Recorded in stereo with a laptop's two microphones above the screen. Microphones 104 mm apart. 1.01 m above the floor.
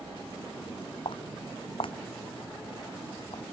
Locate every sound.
1.1 s footsteps: 55° left (ahead or behind); by 3.4 s 65° left (ahead or behind)